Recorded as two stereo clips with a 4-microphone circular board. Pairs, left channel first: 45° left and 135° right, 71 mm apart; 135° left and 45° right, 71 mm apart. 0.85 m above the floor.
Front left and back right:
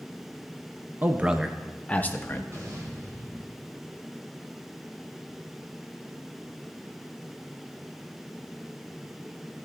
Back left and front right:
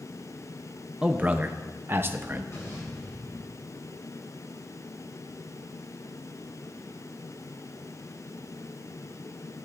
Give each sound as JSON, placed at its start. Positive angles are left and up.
{"t": 1.0, "sound": "a man speaking", "azimuth_deg": -105, "distance_m": 0.8}
{"t": 2.5, "sound": "an explosion", "azimuth_deg": 180, "distance_m": 5.0}